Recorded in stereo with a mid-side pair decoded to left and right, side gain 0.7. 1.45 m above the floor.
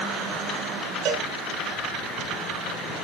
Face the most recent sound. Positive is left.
turn(degrees=-55)